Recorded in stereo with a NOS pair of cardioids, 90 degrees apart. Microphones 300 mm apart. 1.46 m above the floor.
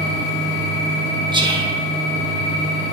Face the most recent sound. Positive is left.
turn(degrees=-15)